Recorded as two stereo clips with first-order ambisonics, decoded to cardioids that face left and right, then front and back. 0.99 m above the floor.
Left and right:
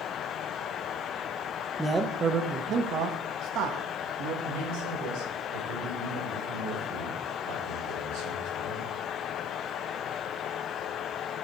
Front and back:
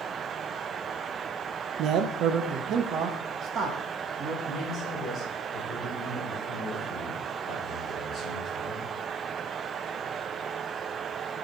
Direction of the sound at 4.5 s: 85° right.